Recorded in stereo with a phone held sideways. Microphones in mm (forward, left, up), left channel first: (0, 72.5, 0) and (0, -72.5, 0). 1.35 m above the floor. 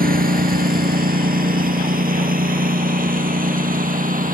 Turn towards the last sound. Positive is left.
turn(degrees=-70)  # may be behind; listen again after turning